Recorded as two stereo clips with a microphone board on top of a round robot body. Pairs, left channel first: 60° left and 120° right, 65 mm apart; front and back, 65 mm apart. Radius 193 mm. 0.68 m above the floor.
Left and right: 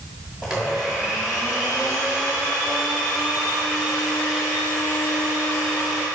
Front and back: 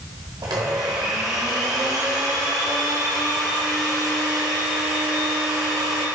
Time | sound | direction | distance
0.4 | a blender | 155° left | 0.8 m